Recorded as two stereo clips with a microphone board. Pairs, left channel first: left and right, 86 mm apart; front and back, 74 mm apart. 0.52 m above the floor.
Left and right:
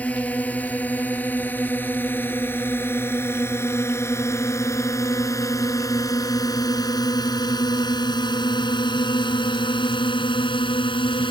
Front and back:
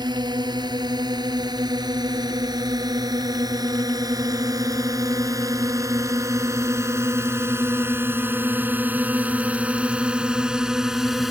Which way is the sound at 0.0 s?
165° left.